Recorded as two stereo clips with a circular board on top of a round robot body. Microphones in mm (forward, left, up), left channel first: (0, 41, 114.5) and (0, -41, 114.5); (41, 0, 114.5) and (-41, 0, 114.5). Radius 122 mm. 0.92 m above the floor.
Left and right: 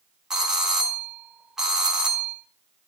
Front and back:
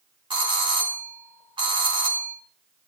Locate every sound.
0.3 s a doorbell: 175° right, 4.5 m